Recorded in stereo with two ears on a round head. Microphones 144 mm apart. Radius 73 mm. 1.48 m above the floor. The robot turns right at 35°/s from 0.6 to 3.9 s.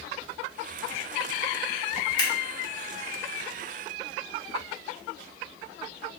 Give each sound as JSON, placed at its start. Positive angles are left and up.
{"t": 2.2, "sound": "scissors", "side_deg": 30, "distance_m": 1.5}